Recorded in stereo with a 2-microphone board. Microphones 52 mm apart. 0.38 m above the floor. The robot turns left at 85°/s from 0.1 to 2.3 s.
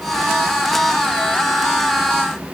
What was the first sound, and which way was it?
Only background noise.